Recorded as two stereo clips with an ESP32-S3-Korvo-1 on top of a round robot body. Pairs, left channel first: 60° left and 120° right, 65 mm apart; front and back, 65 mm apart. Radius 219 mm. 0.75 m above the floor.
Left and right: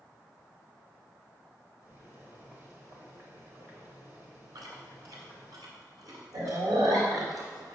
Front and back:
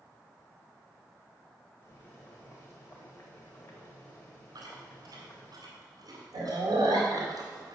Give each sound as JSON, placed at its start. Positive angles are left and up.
{"t": 1.8, "sound": "boiling", "azimuth_deg": -55, "distance_m": 0.9}
{"t": 4.5, "sound": "chewing", "azimuth_deg": -150, "distance_m": 2.0}